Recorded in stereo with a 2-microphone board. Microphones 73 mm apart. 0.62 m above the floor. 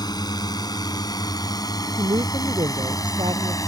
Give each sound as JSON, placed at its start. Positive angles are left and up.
{"t": 0.0, "sound": "a drone", "side_deg": 65}
{"t": 2.0, "sound": "a woman speaking", "side_deg": -85}